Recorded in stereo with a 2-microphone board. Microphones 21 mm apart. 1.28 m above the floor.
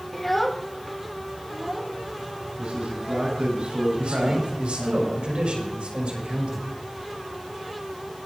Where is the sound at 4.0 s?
65° right (ahead or behind), 6.5 m.